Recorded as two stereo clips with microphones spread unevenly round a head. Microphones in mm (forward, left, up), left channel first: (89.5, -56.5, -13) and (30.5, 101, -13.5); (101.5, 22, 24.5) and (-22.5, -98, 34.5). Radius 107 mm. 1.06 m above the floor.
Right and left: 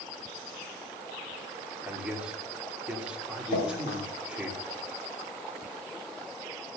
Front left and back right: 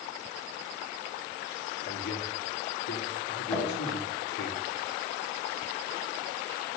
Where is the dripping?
45° right, 6 m.